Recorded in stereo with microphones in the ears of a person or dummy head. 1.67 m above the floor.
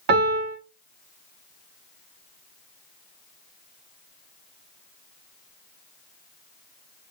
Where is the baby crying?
I don't hear a baby crying.